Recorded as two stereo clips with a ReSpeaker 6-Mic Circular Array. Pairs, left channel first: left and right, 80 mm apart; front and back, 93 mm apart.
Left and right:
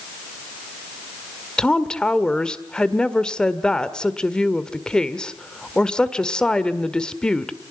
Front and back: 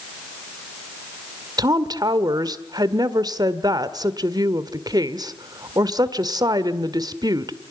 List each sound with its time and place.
1.6 s a woman speaking: 165° left, 1.5 m